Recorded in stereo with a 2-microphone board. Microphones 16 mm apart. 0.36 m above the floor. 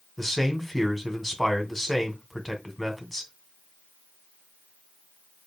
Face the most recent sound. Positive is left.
turn(degrees=15)  # may be behind; listen again after turning